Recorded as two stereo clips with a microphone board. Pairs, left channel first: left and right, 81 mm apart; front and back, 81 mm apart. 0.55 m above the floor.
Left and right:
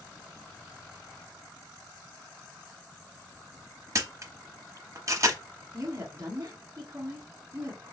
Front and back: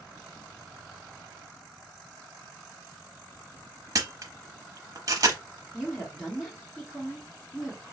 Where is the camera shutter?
140° right, 0.9 m.